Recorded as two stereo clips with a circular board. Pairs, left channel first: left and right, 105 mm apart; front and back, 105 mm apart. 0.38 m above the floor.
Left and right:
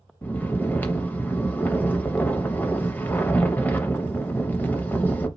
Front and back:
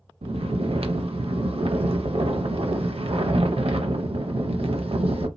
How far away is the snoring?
About 0.5 m.